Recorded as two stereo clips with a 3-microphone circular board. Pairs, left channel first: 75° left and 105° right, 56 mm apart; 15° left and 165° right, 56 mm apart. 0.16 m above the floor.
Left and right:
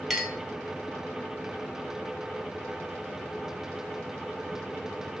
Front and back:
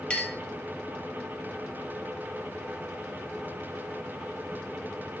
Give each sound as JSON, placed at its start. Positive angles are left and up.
{"t": 0.1, "sound": "a clink", "azimuth_deg": -10, "distance_m": 0.7}